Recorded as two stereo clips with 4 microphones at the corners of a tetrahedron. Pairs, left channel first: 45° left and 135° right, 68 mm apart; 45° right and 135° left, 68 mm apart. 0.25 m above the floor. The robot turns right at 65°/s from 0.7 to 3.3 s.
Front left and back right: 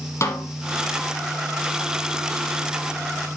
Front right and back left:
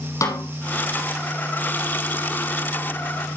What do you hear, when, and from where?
0.2 s a snare drum: 5° right, 3.5 m